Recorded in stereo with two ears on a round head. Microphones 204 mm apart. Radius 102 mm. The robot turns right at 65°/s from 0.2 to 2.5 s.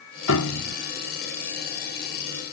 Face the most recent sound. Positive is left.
turn(degrees=-140)